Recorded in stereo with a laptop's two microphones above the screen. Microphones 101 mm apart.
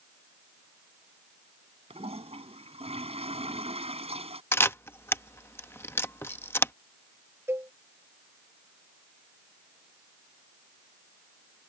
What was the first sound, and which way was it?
A toilet flushing, 80° right.